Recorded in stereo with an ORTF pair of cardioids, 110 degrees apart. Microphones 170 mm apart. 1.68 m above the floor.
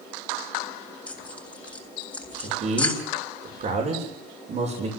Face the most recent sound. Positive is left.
turn(degrees=-45)